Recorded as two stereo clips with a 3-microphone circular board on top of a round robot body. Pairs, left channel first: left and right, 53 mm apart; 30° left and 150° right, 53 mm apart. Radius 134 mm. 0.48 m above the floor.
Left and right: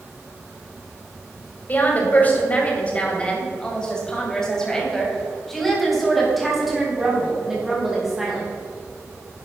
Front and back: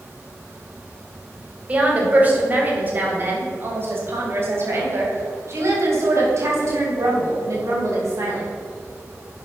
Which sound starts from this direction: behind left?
A woman speaking, at 1.7 s.